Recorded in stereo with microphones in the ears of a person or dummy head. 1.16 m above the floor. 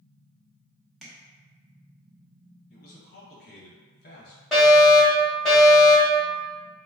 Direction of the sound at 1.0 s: 5° right (ahead or behind).